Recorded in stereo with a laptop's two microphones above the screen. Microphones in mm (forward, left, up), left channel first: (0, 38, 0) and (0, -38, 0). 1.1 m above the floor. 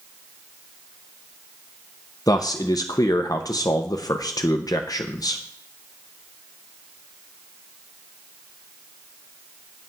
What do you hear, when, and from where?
2.3 s a man speaking: 50° left (ahead or behind), 0.7 m